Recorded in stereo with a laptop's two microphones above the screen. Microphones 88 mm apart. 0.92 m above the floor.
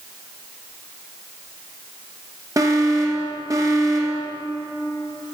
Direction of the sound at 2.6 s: 40° right (ahead or behind).